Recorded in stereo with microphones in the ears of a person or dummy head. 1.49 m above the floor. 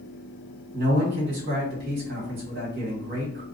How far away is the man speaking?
About 1.4 m.